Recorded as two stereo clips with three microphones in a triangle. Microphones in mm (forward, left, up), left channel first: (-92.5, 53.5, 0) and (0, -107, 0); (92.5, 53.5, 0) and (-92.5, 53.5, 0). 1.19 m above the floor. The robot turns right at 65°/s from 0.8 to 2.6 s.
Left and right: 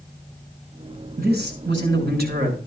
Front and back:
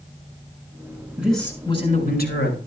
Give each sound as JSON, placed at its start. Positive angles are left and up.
{"t": 1.2, "sound": "a man speaking", "azimuth_deg": -100, "distance_m": 6.5}